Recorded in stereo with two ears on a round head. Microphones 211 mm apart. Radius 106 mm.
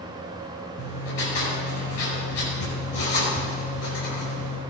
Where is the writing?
65° left (ahead or behind), 5 m.